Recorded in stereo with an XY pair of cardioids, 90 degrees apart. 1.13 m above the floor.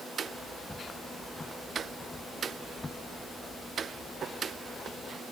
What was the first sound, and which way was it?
Footsteps, 15° left.